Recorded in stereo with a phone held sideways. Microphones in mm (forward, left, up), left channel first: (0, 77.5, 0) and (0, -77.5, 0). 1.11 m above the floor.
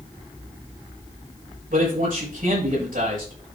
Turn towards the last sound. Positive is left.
turn(degrees=-65)  # may be behind; listen again after turning